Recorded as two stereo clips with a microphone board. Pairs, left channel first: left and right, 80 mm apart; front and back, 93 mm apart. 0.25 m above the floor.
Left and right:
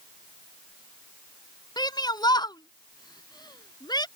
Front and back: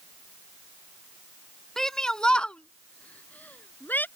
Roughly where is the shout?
Left.